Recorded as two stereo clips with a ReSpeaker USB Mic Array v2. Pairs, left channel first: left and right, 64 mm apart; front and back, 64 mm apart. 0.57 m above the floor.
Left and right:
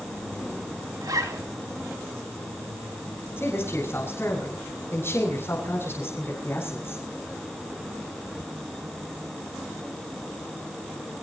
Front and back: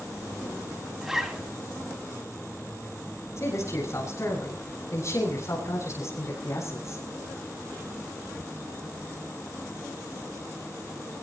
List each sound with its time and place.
1.0 s a zipper: 95° right, 3.5 m
3.4 s a man speaking: 40° left, 7.5 m